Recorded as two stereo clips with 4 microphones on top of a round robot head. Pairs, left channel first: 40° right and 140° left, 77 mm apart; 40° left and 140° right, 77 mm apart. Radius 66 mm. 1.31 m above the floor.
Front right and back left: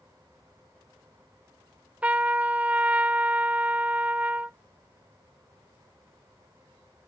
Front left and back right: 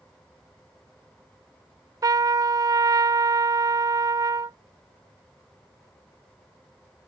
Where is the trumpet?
155° right.